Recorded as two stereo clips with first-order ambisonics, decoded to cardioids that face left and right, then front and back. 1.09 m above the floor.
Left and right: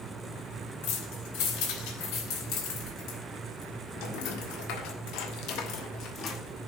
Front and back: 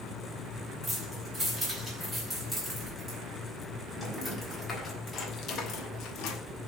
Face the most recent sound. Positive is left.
turn(degrees=30)